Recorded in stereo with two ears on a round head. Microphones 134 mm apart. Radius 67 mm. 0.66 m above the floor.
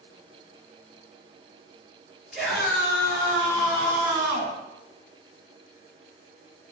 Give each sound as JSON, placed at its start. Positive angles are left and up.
{"t": 2.3, "sound": "a scream", "side_deg": -5, "distance_m": 5.5}